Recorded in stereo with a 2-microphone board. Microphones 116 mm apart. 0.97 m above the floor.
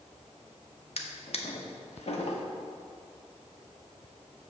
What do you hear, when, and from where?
1.0 s a drawer: 65° left (ahead or behind), 0.9 m